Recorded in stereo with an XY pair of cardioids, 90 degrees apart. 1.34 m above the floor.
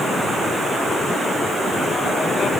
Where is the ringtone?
I don't hear a ringtone.